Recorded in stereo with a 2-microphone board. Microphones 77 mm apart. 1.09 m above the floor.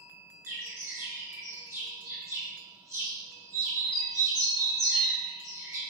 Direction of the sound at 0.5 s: 40° right (ahead or behind).